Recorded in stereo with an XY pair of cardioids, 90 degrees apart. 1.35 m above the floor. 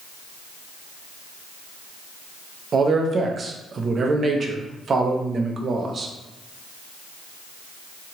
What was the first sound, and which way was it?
A man speaking, 50° right.